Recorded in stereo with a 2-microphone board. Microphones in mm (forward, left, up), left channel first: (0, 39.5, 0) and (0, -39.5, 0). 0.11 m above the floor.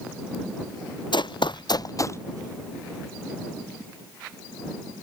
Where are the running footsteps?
75° left (ahead or behind); by 2.2 s 35° left (ahead or behind).